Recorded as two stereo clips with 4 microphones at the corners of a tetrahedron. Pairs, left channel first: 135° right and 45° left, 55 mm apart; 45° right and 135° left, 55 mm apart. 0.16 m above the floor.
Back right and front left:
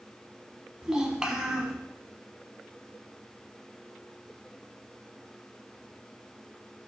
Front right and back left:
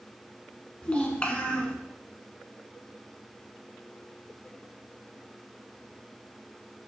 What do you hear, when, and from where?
0.8 s a child speaking: 15° right, 0.6 m